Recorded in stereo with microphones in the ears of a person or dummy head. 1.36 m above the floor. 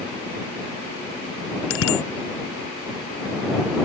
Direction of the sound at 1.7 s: 85° left.